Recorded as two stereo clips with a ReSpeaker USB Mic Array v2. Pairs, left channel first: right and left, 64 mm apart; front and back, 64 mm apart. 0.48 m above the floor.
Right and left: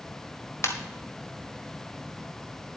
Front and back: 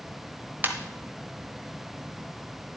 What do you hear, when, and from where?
0.6 s a ringtone: 125° right, 1.5 m